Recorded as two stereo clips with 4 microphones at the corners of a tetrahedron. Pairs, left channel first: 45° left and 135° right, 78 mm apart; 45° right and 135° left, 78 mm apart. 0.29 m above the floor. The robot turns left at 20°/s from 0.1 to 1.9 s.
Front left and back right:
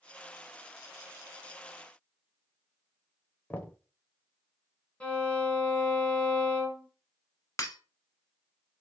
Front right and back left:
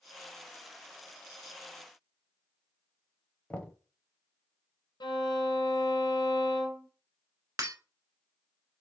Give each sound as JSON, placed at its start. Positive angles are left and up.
{"t": 3.5, "sound": "knocking", "azimuth_deg": 5, "distance_m": 0.7}
{"t": 5.0, "sound": "a violin", "azimuth_deg": -30, "distance_m": 1.3}
{"t": 7.6, "sound": "breaking glass", "azimuth_deg": 95, "distance_m": 1.0}